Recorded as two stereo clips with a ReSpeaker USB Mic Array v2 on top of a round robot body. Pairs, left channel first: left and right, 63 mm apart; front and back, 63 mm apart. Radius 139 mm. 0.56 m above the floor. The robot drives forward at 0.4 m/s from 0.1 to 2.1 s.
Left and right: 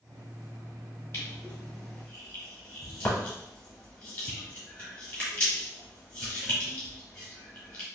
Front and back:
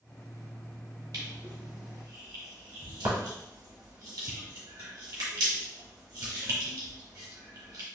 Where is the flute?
No flute in this recording.